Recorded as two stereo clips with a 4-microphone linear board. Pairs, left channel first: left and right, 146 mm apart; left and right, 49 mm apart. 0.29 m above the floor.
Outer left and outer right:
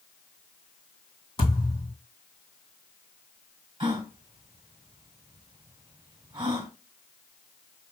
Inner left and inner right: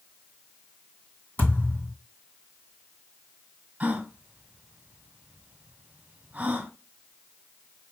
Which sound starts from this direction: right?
A gasp, at 3.8 s.